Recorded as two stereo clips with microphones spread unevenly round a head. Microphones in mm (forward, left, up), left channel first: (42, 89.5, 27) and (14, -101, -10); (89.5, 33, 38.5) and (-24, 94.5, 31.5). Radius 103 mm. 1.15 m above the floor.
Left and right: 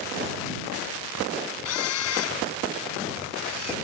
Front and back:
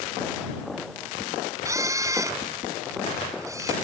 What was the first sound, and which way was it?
A camera shutter, 85° left.